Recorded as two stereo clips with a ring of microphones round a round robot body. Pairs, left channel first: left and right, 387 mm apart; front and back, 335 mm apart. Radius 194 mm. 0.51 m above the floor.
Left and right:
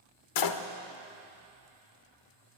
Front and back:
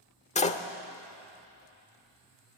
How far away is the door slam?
About 1.4 m.